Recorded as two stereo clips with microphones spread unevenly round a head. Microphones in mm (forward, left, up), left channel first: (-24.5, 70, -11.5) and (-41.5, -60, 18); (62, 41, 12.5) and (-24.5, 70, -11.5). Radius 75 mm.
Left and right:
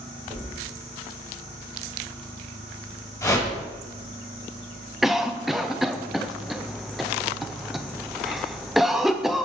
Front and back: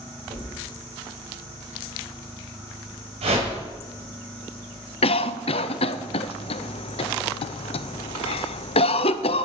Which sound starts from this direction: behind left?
A whoosh, at 3.2 s.